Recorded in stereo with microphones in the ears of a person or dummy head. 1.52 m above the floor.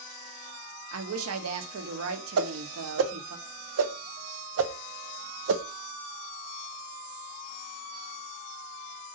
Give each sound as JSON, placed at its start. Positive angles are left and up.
{"t": 0.9, "sound": "a woman speaking", "side_deg": -75, "distance_m": 1.0}
{"t": 2.4, "sound": "a whoosh", "side_deg": -75, "distance_m": 0.7}